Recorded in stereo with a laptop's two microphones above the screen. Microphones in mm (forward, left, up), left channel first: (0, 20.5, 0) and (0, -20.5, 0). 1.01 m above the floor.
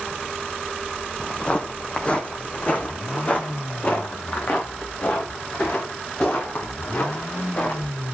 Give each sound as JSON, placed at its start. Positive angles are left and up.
{"t": 1.2, "sound": "footsteps", "side_deg": 20, "distance_m": 1.8}